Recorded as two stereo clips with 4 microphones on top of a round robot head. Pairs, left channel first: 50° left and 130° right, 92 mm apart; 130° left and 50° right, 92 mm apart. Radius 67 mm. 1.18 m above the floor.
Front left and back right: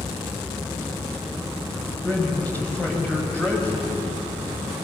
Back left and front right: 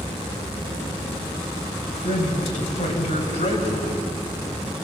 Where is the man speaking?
125° left, 5.5 m.